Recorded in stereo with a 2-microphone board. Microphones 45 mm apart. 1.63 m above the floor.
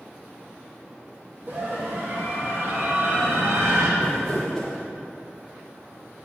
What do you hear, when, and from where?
1.5 s a scream: 45° right (ahead or behind), 2 m; by 3.9 s 70° right (ahead or behind), 3 m
4.0 s crumpling: 10° left (ahead or behind), 3.5 m